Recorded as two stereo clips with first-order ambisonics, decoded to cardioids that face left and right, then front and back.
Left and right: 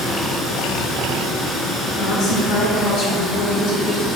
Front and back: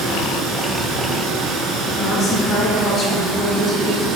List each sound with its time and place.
0.0 s running water: 155° left, 1.6 m
1.9 s a woman speaking: 65° left, 2.5 m